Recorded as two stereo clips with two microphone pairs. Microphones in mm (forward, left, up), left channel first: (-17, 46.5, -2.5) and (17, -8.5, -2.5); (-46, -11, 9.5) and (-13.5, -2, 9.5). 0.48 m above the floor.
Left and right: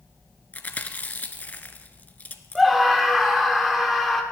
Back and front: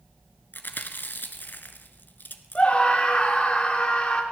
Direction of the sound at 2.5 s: 145° right.